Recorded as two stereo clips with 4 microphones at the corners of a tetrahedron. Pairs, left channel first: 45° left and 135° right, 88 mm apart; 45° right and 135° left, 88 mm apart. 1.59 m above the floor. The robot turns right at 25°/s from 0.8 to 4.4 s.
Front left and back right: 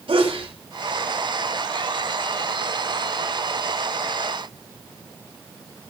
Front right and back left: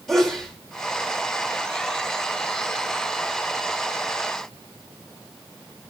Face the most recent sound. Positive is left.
turn(degrees=-40)